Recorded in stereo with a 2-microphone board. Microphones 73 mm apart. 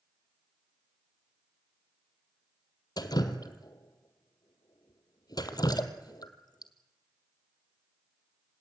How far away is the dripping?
About 1.4 m.